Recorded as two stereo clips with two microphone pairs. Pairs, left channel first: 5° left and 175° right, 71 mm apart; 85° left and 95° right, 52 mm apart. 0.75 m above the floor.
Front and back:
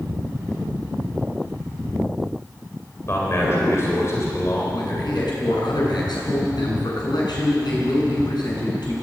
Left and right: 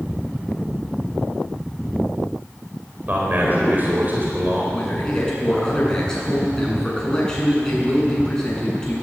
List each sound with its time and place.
3.1 s a man speaking: 40° right, 4 m
4.7 s a man speaking: 10° left, 7.5 m